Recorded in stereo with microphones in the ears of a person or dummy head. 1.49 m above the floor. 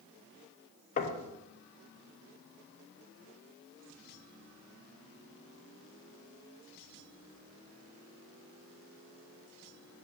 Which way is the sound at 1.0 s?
45° left (ahead or behind).